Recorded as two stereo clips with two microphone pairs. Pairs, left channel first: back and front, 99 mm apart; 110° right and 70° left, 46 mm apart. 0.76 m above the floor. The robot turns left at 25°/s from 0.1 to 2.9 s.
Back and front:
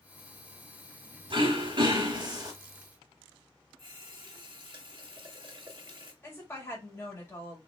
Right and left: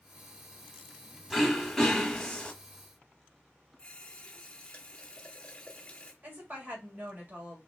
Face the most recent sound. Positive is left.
turn(degrees=115)